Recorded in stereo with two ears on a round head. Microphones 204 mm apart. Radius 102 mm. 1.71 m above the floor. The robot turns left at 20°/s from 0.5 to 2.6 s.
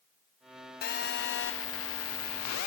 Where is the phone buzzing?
135° left, 0.8 m; by 2.7 s 100° left, 0.8 m.